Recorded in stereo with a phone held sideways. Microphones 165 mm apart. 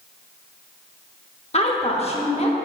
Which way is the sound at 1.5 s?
40° left (ahead or behind).